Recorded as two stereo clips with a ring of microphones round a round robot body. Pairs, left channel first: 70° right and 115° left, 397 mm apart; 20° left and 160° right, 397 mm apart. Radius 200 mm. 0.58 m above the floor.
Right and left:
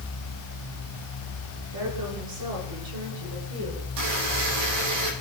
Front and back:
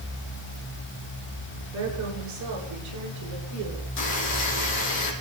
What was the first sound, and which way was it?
A woman speaking, 150° left.